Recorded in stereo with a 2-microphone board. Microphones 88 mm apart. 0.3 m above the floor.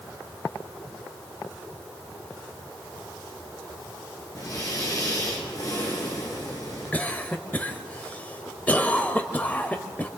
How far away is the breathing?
About 5.5 m.